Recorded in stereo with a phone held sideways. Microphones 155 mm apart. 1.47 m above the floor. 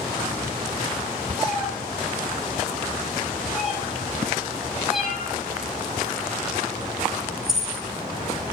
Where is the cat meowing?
Centre (ahead or behind), 6.5 m.